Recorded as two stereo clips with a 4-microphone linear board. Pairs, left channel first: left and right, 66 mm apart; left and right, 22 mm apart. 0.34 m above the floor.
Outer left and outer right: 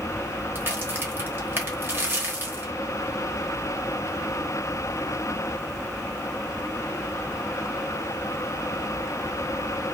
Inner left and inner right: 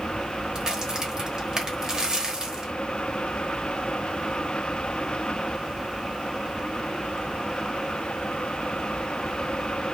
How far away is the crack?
About 0.9 m.